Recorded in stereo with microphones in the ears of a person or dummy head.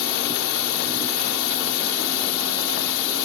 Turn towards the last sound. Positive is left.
turn(degrees=70)  # may be behind; listen again after turning